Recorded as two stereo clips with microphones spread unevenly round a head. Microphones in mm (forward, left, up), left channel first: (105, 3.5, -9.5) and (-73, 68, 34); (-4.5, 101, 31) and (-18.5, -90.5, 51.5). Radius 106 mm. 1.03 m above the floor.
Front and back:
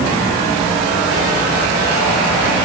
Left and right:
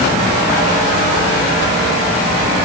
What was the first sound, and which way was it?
Only background noise.